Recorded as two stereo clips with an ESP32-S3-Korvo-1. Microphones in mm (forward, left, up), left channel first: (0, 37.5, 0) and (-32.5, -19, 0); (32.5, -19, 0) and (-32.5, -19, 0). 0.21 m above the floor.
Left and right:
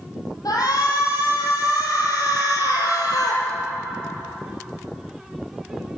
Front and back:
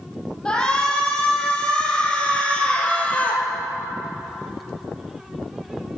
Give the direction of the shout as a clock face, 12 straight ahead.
9 o'clock.